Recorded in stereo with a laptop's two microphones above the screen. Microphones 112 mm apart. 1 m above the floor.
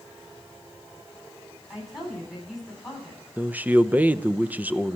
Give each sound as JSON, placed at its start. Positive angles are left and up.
{"t": 1.7, "sound": "a woman speaking", "side_deg": 0, "distance_m": 10.0}
{"t": 3.4, "sound": "a man speaking", "side_deg": -15, "distance_m": 0.7}